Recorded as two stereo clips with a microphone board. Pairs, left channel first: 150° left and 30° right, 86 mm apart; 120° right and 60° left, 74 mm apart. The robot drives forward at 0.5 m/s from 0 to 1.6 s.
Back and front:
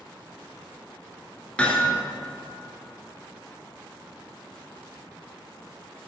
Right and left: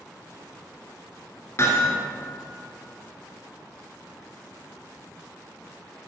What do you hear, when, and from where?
1.6 s hammering: 140° right, 1.6 m